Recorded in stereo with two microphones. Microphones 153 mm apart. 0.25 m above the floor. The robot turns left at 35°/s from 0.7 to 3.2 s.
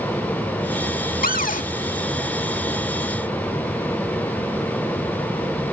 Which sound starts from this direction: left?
A cupboard door, at 1.2 s.